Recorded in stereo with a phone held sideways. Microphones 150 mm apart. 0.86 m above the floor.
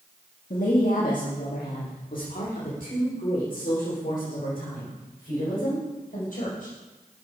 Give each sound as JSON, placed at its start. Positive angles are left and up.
{"t": 0.5, "sound": "a woman speaking", "side_deg": 60, "distance_m": 1.5}